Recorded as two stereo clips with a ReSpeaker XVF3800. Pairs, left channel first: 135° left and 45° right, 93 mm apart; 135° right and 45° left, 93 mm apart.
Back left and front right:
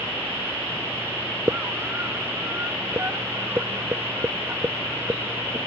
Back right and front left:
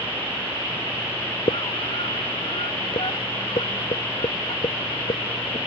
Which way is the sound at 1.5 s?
110° right.